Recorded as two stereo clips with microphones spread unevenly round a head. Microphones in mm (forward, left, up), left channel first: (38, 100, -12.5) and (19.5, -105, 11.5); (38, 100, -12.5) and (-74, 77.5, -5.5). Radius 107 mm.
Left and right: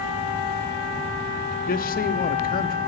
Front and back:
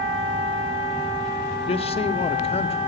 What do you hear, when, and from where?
1.7 s a man speaking: 40° left, 0.9 m